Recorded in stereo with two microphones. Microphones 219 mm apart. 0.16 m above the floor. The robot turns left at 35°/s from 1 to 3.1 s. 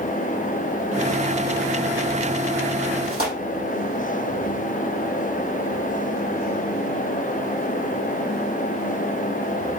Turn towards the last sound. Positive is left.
turn(degrees=-80)